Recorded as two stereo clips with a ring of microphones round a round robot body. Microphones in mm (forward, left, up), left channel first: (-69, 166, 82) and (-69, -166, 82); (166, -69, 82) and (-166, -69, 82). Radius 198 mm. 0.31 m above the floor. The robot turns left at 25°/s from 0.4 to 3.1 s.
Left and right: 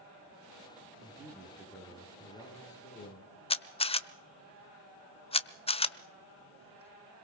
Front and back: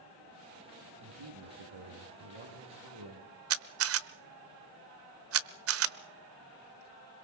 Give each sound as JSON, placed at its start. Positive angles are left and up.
{"t": 1.0, "sound": "a man speaking", "azimuth_deg": -155, "distance_m": 5.5}
{"t": 3.5, "sound": "a camera shutter", "azimuth_deg": 160, "distance_m": 1.0}